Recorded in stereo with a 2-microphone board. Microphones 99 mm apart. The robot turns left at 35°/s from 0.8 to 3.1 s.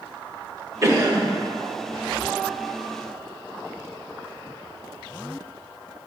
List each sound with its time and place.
0.8 s a cough: 30° right (ahead or behind), 1.8 m; by 1.3 s 40° right (ahead or behind), 1.8 m